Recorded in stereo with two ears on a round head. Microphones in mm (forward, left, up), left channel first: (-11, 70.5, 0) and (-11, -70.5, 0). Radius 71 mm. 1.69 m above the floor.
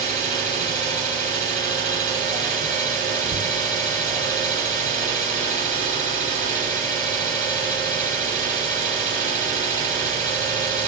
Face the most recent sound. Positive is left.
turn(degrees=-30)  # may be behind; listen again after turning